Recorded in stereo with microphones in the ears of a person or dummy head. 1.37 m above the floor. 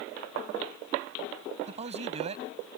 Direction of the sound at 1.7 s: 35° right (ahead or behind).